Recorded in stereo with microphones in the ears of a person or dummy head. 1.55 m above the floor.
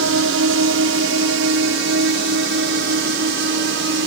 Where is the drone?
70° right (ahead or behind); by 4.1 s 60° right (ahead or behind).